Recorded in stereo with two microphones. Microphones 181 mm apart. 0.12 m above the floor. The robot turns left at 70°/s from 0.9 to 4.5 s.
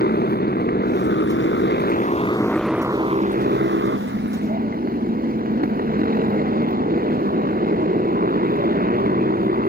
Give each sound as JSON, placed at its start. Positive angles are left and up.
{"t": 0.0, "sound": "a motorcycle", "azimuth_deg": 125}